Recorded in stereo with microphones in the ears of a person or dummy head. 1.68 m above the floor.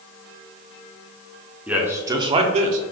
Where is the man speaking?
5° right (ahead or behind), 0.7 m; by 2.8 s 45° right (ahead or behind), 0.6 m.